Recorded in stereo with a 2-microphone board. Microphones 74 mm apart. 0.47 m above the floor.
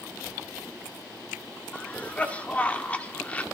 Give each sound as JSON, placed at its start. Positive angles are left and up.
{"t": 1.7, "sound": "a cough", "side_deg": 20, "distance_m": 1.1}